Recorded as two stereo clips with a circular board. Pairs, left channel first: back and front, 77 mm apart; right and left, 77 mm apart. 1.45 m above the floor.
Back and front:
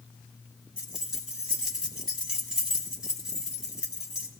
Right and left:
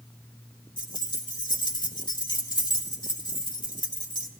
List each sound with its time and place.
0.8 s keys jangling: 80° right, 1.9 m